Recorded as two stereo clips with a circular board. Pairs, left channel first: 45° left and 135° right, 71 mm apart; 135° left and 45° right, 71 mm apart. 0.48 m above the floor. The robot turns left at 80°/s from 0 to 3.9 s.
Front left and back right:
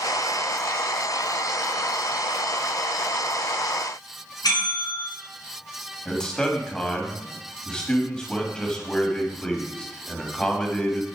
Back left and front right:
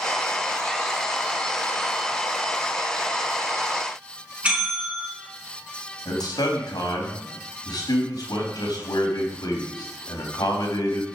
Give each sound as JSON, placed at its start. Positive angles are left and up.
{"t": 4.4, "sound": "a bell", "azimuth_deg": 25, "distance_m": 6.0}
{"t": 6.0, "sound": "a man speaking", "azimuth_deg": 125, "distance_m": 3.5}